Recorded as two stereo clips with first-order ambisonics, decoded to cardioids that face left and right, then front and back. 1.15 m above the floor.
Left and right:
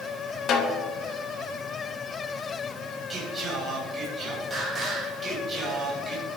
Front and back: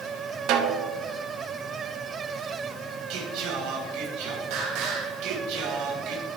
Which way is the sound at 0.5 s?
145° left.